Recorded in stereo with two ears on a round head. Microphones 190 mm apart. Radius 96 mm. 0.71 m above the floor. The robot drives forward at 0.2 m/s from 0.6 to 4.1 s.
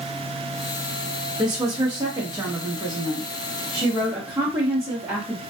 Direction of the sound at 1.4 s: 20° right (ahead or behind).